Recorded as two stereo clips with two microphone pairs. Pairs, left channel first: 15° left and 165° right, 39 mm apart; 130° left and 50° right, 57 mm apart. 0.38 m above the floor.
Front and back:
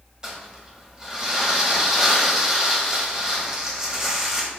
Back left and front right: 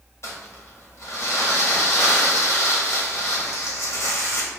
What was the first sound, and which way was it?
Crumpling, 125° left.